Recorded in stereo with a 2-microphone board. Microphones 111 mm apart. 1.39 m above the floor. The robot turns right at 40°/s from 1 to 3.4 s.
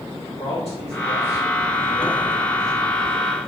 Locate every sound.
0.4 s a man speaking: 75° left (ahead or behind), 3 m; by 2.8 s centre (ahead or behind), 3 m